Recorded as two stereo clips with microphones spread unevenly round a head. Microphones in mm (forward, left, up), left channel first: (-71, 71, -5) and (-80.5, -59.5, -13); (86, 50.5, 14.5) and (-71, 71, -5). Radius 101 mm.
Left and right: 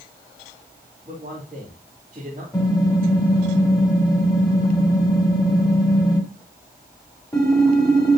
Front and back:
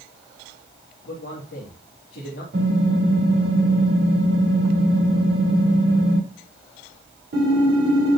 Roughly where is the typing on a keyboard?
Behind left.